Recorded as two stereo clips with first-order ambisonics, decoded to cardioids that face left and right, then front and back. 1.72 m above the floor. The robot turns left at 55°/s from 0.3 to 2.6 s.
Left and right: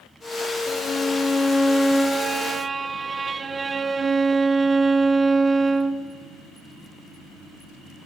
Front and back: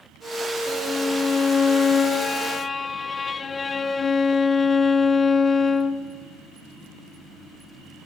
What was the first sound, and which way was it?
A violin, 70° left.